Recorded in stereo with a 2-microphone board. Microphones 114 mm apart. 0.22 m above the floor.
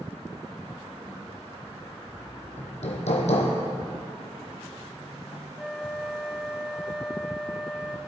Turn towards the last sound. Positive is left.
turn(degrees=0)  # may be behind; listen again after turning